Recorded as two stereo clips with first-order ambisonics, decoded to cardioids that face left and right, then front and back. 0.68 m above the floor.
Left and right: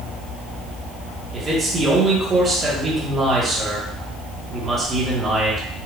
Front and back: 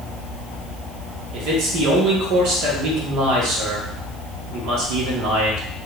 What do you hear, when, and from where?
1.3 s a man speaking: 155° right, 1.4 m